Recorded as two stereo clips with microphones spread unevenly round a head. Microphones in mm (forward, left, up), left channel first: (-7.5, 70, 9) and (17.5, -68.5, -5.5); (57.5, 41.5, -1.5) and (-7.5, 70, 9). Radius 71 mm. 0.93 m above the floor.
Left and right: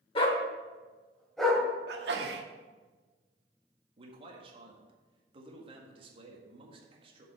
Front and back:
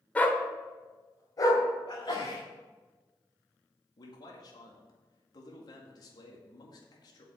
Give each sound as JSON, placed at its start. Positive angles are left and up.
{"t": 0.1, "sound": "a dog barking", "azimuth_deg": 50, "distance_m": 1.3}
{"t": 1.9, "sound": "a sneeze", "azimuth_deg": -80, "distance_m": 1.4}
{"t": 4.0, "sound": "a man speaking", "azimuth_deg": -35, "distance_m": 1.8}